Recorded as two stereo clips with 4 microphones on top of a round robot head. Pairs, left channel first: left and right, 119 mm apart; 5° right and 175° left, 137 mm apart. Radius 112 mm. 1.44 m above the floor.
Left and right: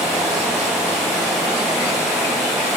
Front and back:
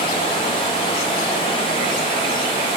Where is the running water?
Straight ahead, 0.8 m.